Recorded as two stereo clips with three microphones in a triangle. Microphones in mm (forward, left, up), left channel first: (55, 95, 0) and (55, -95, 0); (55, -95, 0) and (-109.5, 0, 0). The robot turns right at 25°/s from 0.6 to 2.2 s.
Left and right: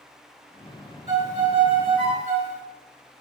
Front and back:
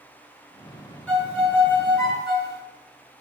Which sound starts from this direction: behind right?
A violin, at 1.1 s.